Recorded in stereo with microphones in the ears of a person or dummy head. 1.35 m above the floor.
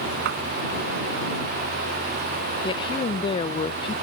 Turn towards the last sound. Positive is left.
turn(degrees=30)  # may be behind; listen again after turning